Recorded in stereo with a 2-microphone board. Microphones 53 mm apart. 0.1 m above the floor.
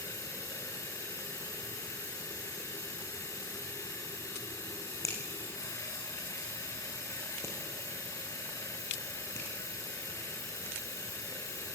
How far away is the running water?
About 5.5 m.